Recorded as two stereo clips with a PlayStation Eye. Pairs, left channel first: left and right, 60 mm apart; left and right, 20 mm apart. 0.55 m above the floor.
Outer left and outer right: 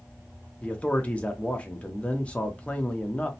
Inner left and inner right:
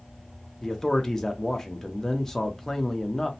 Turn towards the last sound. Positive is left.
turn(degrees=20)  # may be behind; listen again after turning